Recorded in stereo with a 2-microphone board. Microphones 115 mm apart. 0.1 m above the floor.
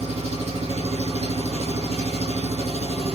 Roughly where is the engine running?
Right.